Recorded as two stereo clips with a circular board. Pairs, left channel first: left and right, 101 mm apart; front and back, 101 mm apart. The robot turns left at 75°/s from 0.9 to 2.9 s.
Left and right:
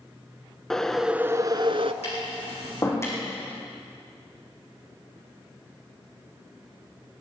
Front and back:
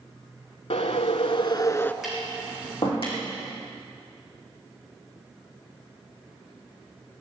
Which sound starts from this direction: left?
Tapping, at 2.0 s.